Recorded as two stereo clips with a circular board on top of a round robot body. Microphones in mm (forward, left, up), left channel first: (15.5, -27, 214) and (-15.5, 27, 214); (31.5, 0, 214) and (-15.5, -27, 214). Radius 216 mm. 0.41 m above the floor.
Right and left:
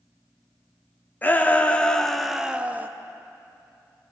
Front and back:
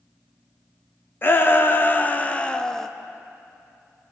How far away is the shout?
About 1.6 m.